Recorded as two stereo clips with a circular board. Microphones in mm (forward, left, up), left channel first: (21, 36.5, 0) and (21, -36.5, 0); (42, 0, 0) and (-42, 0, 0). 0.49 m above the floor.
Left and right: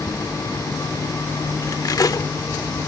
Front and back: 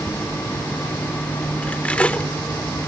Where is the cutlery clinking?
75° left.